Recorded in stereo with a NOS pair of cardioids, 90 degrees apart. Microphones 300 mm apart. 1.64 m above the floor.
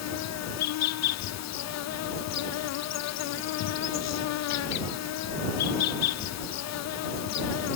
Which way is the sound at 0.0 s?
65° left.